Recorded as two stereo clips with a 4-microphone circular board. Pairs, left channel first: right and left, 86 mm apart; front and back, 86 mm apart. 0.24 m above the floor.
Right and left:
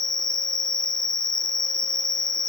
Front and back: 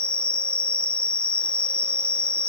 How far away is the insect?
About 0.8 m.